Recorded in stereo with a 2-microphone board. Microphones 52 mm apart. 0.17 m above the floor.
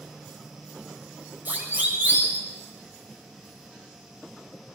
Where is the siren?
30° right (ahead or behind), 7 m.